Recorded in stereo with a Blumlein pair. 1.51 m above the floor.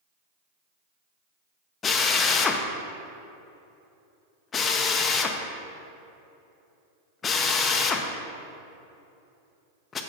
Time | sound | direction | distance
1.8 | a drill | 20° left | 0.7 m